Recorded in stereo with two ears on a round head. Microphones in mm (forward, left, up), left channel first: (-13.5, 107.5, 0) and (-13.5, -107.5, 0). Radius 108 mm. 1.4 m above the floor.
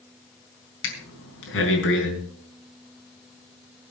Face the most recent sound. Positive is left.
turn(degrees=60)  # may be behind; listen again after turning